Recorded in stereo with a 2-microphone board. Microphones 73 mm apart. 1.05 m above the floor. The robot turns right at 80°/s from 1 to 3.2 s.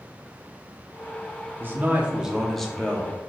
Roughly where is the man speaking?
Right.